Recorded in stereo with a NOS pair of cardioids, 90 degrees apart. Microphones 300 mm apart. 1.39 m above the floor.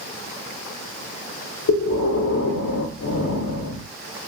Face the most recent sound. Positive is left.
turn(degrees=55)